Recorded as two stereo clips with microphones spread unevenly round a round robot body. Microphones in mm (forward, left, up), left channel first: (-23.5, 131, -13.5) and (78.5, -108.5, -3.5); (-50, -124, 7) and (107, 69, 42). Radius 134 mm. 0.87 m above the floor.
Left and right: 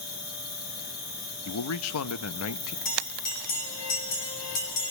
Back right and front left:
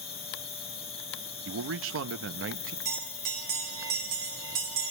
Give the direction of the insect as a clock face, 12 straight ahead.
6 o'clock.